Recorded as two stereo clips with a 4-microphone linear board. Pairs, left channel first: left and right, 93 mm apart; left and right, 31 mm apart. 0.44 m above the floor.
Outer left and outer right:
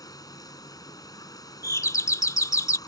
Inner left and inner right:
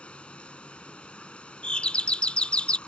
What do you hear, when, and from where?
0.0 s running water: 40° left (ahead or behind)
1.6 s a doorbell: 35° left (ahead or behind)